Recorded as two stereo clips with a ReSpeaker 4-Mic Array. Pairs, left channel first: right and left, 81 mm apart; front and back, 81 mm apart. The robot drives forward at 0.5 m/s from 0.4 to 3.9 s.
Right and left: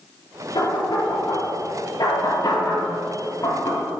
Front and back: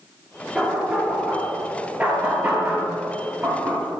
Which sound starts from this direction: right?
Knocking, at 0.6 s.